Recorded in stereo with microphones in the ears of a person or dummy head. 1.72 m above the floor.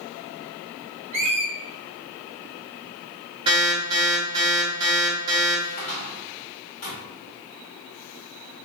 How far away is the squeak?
About 0.8 m.